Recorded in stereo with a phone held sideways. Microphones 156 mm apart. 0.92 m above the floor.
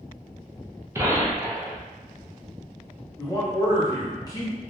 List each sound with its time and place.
0.9 s a gunshot: 15° right (ahead or behind), 0.6 m
3.2 s a man speaking: 25° left (ahead or behind), 0.9 m